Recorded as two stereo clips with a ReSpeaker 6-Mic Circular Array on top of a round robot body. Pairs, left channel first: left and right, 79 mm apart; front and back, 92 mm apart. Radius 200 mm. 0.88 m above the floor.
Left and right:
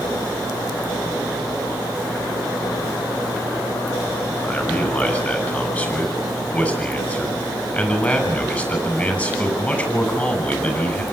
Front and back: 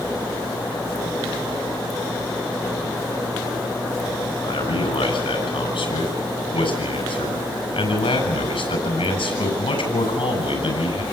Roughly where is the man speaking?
Ahead.